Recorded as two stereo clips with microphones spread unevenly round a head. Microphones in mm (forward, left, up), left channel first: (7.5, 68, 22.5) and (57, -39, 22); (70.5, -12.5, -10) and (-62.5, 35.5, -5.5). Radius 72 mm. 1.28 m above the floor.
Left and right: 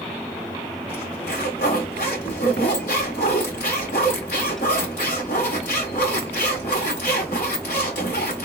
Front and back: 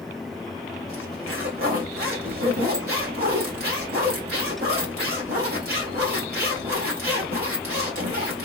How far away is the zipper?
About 2 m.